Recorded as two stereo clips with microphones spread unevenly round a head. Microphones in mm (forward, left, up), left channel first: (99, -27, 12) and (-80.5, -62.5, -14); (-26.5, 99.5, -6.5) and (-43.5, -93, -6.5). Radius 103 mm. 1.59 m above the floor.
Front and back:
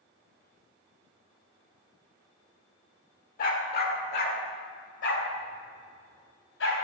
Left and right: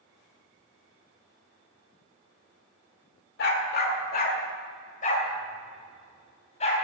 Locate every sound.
3.4 s a dog barking: 50° left, 2 m; by 6.7 s 25° left, 4.5 m